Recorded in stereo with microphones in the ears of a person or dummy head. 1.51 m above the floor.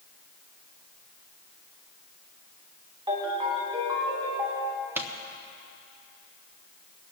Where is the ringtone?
25° right (ahead or behind), 2.5 m.